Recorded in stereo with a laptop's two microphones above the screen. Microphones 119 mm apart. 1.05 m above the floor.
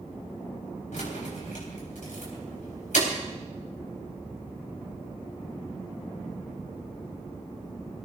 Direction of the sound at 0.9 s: 90° left.